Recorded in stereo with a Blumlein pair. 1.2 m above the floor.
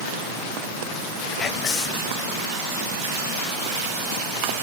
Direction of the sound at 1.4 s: 25° left.